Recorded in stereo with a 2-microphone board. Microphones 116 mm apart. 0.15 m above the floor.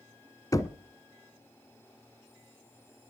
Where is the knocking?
30° left (ahead or behind), 1.0 m.